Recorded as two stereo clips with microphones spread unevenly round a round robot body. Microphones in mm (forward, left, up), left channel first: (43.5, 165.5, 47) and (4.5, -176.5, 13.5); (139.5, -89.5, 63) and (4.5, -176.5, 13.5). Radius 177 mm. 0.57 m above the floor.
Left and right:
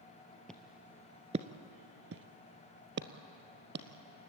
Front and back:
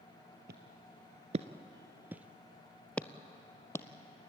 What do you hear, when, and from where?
0.5 s footsteps: 165° left, 0.8 m; by 3.9 s 35° right, 1.4 m